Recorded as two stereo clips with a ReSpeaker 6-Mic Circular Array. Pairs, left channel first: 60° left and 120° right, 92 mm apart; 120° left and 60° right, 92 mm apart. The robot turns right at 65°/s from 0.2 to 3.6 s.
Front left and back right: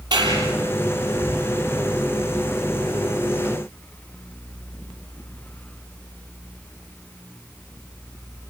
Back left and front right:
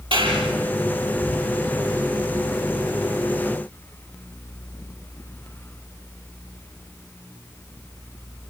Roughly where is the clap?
Right.